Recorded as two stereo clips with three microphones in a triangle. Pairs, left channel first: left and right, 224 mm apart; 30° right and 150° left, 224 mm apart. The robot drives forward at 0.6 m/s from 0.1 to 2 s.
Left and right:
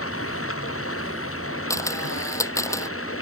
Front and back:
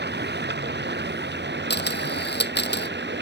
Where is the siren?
No siren in this recording.